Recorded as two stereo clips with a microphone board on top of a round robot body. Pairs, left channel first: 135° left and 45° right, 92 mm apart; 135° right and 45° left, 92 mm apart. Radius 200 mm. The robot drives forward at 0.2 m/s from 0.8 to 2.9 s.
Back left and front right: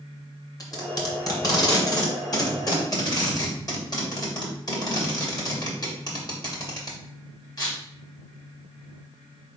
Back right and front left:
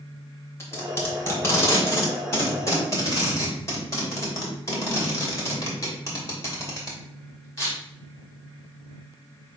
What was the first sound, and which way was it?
Tape being pulled, 170° left.